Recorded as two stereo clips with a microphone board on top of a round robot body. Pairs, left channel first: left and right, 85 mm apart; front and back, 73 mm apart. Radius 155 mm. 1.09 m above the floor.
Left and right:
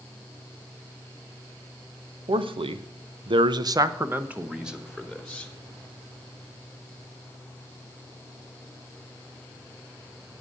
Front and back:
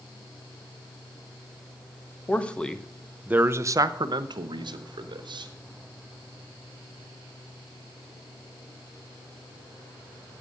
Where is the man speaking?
70° right, 1.2 m; by 5.5 s 175° left, 1.7 m.